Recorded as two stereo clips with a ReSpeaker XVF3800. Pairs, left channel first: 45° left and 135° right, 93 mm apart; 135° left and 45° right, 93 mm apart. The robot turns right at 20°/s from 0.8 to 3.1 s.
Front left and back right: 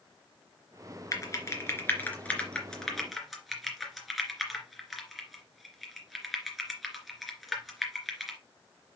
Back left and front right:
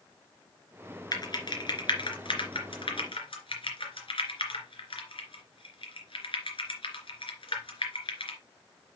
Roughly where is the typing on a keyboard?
Left.